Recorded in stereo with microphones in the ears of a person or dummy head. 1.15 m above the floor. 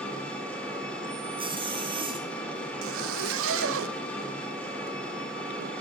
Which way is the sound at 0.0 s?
10° left (ahead or behind).